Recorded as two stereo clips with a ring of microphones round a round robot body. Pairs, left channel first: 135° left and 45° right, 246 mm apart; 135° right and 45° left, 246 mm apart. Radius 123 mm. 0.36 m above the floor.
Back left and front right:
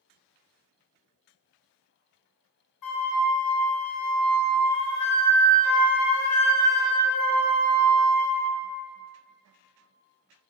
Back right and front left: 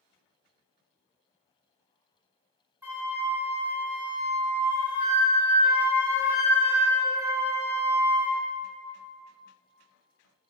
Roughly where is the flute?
Behind left.